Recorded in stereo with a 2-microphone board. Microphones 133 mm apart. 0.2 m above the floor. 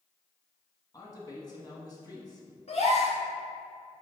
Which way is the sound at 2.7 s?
55° left (ahead or behind).